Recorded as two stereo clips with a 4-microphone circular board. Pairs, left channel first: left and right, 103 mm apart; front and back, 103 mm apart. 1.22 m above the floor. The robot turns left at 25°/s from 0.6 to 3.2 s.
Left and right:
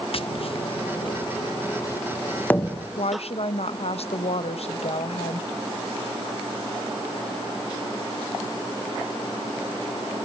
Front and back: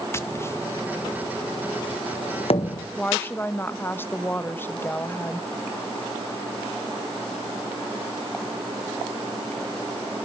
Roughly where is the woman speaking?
Left.